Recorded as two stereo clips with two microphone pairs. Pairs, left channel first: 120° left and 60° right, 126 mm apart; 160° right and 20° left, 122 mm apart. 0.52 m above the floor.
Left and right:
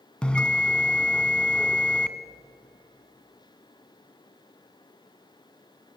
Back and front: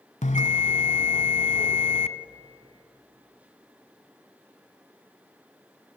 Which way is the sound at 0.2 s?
155° right.